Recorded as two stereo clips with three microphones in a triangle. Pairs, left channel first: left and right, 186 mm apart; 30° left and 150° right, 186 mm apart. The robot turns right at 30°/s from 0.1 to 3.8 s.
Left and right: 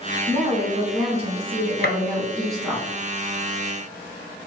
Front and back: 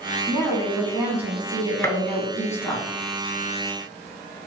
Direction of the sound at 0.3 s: 100° right.